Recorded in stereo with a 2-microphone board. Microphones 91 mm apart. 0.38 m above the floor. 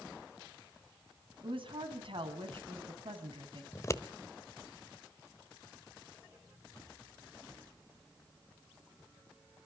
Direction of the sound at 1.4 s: 70° right (ahead or behind).